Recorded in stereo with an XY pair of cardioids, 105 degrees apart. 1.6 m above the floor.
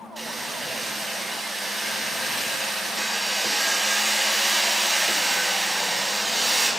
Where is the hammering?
10° right, 6.5 m.